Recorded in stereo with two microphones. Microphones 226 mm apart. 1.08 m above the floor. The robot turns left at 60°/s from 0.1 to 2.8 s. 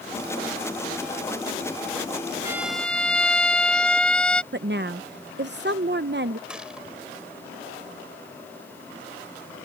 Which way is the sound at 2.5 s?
15° right (ahead or behind).